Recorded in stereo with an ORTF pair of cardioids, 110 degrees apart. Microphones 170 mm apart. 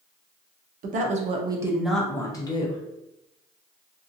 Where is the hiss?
I don't hear a hiss.